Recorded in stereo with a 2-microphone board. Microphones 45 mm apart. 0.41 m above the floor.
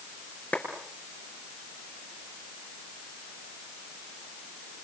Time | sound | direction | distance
0.5 | a clap | 35° left (ahead or behind) | 6 m